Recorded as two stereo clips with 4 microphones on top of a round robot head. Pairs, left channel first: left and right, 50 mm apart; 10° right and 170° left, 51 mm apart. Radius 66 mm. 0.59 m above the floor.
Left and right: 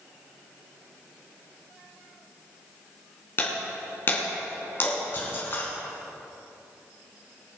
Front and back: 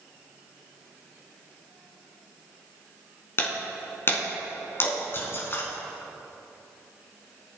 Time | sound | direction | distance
3.4 | breaking glass | 35° left | 3.5 m